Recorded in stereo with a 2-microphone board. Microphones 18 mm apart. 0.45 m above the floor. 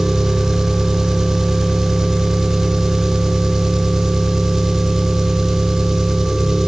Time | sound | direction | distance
0.0 | an engine running | 30° right (ahead or behind) | 0.8 m